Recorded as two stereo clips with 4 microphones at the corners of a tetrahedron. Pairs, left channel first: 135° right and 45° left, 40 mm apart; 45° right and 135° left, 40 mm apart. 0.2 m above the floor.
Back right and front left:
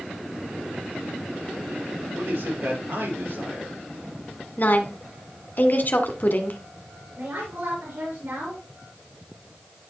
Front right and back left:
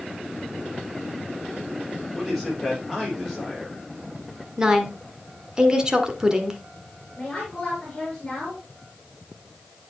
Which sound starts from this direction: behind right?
A woman speaking, at 4.6 s.